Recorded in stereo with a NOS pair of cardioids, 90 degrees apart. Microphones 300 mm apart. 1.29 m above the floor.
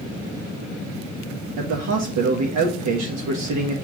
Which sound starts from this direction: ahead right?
A man speaking, at 1.6 s.